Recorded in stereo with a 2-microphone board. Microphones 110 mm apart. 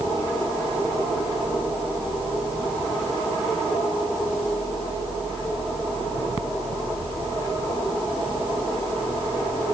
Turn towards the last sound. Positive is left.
No sound to turn to.